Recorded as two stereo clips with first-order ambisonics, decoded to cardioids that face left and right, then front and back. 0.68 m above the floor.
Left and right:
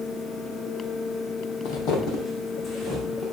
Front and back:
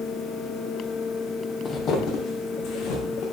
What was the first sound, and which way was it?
Footsteps, 70° left.